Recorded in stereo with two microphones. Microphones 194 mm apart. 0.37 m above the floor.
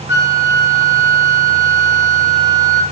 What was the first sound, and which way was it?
A flute, 75° left (ahead or behind).